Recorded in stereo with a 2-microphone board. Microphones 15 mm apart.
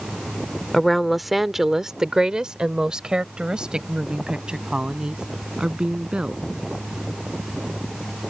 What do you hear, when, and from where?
0.7 s a woman speaking: 10° left (ahead or behind); by 6.4 s 70° right (ahead or behind)